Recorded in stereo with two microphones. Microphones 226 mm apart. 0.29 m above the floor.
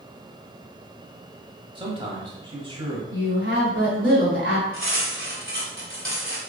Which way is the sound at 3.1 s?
55° right (ahead or behind).